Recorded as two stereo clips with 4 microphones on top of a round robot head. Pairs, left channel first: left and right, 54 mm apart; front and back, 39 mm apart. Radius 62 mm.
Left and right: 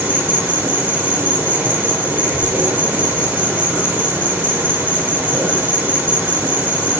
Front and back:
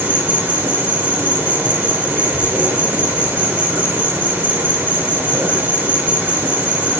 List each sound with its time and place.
0.0 s an insect: 145° right, 6 m